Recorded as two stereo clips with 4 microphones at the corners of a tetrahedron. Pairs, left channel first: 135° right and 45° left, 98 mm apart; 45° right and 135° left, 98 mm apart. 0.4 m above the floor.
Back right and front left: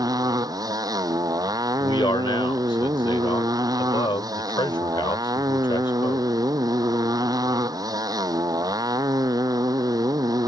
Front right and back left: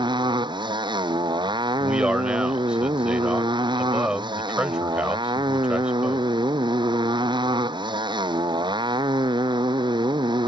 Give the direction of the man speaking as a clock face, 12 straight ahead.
5 o'clock.